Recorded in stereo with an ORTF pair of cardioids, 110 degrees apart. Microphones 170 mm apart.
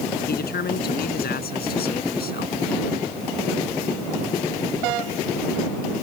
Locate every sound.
0.3 s a man speaking: 65° left